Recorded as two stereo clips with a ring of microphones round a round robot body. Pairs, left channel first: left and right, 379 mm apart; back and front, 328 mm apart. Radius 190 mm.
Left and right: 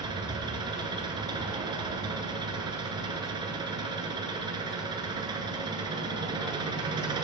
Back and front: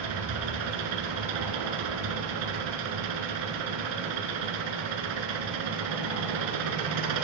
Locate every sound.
0.0 s an engine running: 10° right, 1.3 m